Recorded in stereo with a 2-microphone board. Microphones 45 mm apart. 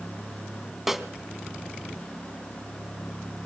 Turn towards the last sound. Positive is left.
turn(degrees=-5)  # may be behind; listen again after turning